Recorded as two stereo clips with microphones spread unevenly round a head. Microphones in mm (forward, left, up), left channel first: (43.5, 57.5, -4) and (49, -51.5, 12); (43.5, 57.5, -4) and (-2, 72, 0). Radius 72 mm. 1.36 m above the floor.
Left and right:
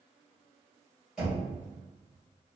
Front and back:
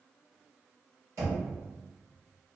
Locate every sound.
1.2 s knocking: 170° right, 1.5 m